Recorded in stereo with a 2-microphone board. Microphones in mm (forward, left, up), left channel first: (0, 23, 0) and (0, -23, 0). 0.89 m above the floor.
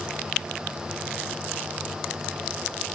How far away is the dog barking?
No dog barking in this recording.